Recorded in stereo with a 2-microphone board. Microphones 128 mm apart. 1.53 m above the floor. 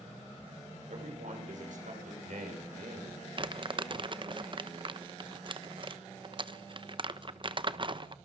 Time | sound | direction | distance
0.9 | a man speaking | 75° right (ahead or behind) | 6.5 m
3.4 | crumpling | 40° right (ahead or behind) | 1.0 m